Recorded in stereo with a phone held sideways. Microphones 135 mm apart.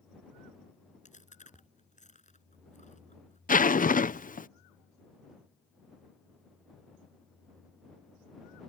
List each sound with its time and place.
1.1 s chewing: 65° left (ahead or behind)
3.5 s a zipper: 85° left